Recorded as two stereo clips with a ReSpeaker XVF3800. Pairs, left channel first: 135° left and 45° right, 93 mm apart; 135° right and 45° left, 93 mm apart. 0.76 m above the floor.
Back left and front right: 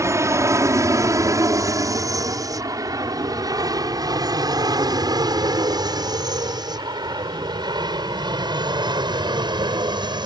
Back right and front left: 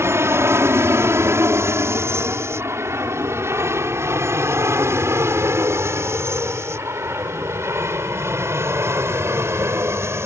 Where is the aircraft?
5° right; by 10.3 s 15° right.